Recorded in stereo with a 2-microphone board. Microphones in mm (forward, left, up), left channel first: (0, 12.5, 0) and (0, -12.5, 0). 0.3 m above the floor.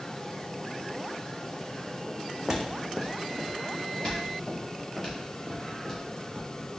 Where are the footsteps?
25° right (ahead or behind), 0.7 m; by 6.7 s 15° left (ahead or behind), 2.5 m.